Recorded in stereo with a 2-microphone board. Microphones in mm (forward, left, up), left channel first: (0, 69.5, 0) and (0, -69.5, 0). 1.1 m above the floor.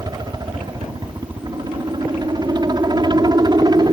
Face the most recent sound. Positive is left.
turn(degrees=-30)  # may be behind; listen again after turning